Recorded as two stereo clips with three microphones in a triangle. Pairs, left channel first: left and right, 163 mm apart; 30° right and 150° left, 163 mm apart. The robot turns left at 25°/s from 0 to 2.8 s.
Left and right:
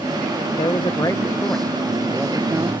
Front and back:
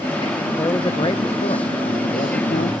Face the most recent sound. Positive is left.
turn(degrees=-20)